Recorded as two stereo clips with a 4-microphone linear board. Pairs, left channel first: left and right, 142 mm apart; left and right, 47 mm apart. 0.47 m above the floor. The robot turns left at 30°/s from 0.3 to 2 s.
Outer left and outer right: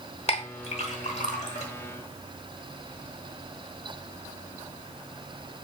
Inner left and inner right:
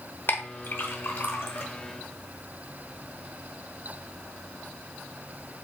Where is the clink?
45° left (ahead or behind), 1.0 m; by 1.7 s 55° left (ahead or behind), 1.0 m.